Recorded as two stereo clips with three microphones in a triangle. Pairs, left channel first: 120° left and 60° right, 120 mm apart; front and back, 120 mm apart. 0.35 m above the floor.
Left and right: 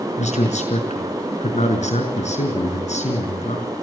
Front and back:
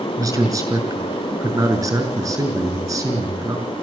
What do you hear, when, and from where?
0.2 s a man speaking: 120° left, 4.5 m